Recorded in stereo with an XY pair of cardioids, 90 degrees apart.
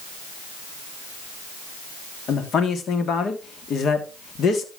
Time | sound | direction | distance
2.3 | a man speaking | 65° left | 3 m